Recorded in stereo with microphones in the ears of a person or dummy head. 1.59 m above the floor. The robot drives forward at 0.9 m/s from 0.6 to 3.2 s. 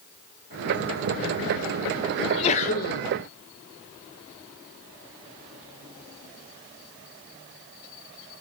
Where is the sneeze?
25° left (ahead or behind), 1.1 m; by 3.0 s 55° left (ahead or behind), 0.6 m.